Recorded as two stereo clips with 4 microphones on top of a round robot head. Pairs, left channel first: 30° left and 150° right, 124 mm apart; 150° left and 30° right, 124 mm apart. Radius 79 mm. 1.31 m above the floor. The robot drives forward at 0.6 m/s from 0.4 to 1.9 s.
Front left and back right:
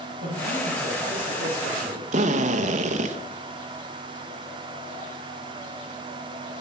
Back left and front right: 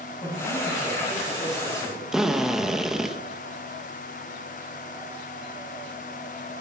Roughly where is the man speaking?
Behind right.